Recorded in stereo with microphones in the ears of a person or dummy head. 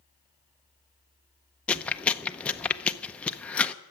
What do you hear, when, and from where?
1.7 s chewing: 5° left (ahead or behind), 0.7 m